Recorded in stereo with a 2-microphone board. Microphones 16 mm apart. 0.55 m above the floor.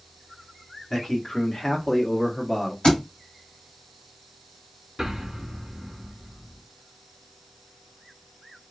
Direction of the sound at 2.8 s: 75° left (ahead or behind).